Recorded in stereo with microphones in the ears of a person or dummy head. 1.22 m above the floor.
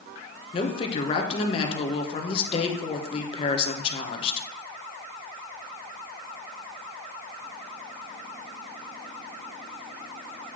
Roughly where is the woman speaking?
Left.